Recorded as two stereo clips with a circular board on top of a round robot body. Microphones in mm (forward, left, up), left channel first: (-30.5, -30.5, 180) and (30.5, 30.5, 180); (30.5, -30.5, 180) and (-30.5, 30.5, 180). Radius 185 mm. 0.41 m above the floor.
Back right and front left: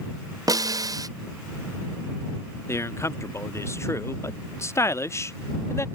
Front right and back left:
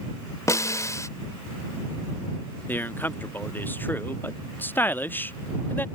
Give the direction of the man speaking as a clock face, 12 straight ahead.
3 o'clock.